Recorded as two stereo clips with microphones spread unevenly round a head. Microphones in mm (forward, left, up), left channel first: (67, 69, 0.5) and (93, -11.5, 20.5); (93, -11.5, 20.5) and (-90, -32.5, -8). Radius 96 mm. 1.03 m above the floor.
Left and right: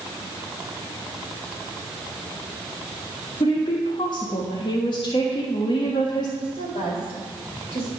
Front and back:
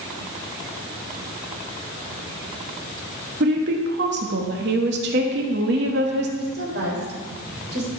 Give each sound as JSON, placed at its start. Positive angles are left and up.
{"t": 3.4, "sound": "a woman speaking", "azimuth_deg": 155, "distance_m": 1.4}
{"t": 6.4, "sound": "a woman speaking", "azimuth_deg": 145, "distance_m": 3.5}